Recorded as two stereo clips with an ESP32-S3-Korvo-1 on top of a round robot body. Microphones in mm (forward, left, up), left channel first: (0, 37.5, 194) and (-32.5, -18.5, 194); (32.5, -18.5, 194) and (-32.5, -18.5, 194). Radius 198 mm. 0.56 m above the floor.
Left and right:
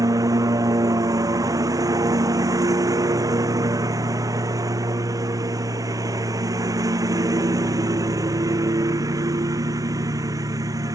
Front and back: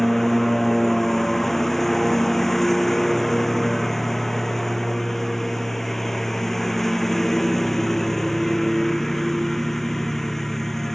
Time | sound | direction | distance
0.0 | a lawn mower | 85° right | ?